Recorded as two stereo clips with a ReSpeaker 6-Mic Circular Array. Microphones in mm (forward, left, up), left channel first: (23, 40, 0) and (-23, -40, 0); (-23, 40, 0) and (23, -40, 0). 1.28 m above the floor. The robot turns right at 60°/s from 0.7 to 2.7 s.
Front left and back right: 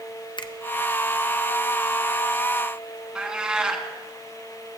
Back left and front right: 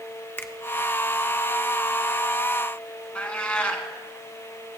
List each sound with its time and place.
0.4 s a finger snap: 60° left, 0.6 m
3.1 s a cat meowing: 175° left, 1.2 m